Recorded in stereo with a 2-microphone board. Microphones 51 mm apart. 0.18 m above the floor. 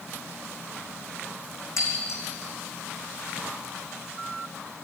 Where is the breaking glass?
65° left (ahead or behind), 4.5 m.